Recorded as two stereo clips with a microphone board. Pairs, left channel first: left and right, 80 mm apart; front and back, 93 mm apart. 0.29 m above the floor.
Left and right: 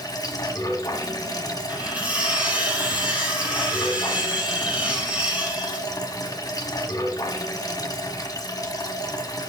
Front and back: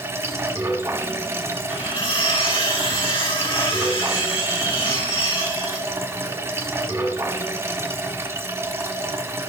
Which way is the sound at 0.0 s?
125° left.